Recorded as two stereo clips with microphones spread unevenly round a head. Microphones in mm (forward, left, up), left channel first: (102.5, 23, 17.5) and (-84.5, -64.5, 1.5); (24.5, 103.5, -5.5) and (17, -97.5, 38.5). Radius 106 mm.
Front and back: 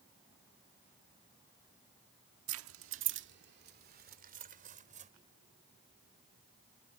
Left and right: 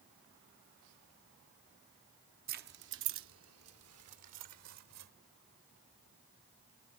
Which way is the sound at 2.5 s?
140° right.